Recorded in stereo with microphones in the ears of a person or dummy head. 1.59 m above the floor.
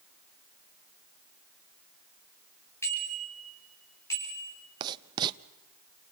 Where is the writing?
25° right (ahead or behind), 0.7 m.